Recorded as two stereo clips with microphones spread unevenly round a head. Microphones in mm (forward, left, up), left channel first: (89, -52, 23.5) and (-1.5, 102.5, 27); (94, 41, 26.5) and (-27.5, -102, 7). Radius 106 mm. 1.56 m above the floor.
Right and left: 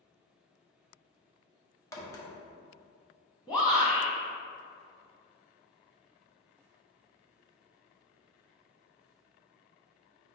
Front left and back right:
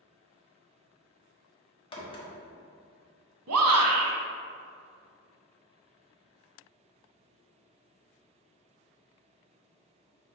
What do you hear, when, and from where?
1.9 s a crack: 5° left, 1.2 m
3.5 s a shout: 135° right, 1.2 m